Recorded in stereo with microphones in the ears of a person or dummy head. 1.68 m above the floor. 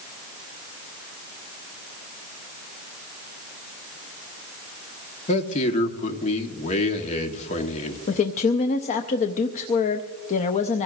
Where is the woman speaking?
40° left (ahead or behind), 0.6 m.